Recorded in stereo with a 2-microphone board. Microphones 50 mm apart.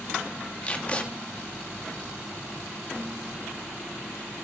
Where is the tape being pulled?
30° left (ahead or behind), 1.5 m.